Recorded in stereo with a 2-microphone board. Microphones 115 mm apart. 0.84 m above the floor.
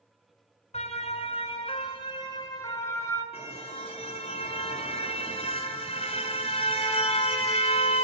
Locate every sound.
0.7 s a siren: 70° left (ahead or behind), 3 m; by 3.2 s 25° left (ahead or behind), 5 m
3.3 s a car horn: 55° left (ahead or behind), 5 m